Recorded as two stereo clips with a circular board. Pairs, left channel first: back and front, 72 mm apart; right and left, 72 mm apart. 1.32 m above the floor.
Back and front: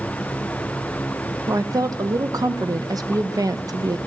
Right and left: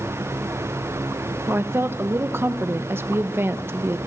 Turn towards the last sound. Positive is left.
turn(degrees=35)